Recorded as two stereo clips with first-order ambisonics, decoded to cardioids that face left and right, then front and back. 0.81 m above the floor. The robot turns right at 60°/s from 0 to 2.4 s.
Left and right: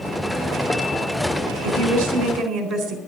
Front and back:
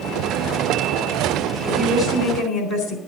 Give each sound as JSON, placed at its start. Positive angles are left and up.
{"t": 1.6, "sound": "a woman speaking", "azimuth_deg": -90, "distance_m": 3.5}